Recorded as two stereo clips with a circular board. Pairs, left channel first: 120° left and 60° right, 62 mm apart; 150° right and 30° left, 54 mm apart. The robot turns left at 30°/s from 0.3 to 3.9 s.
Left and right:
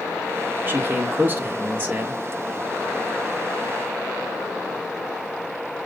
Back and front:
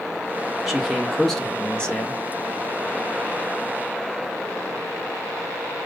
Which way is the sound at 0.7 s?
50° right.